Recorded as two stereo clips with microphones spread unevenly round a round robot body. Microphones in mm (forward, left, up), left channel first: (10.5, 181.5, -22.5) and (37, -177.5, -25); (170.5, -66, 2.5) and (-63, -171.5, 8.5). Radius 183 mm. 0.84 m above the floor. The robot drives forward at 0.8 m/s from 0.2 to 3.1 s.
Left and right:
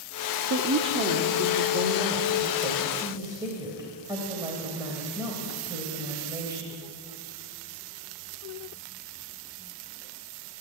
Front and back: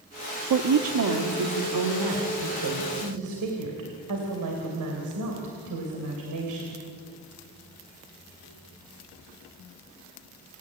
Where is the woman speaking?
140° right, 1.1 m; by 6.7 s 165° right, 3 m.